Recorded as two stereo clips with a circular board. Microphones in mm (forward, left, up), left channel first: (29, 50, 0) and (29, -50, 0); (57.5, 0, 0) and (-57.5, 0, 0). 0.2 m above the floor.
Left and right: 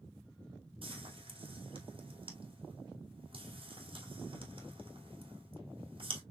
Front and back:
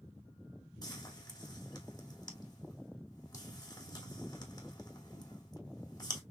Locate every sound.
0.8 s frying: 55° right, 2.5 m